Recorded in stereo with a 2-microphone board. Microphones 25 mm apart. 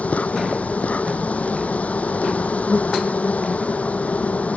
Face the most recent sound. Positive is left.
turn(degrees=80)